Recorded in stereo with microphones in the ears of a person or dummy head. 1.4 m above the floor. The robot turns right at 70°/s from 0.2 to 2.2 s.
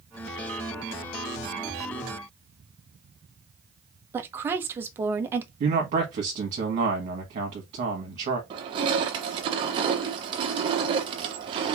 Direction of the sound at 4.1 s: 15° right (ahead or behind).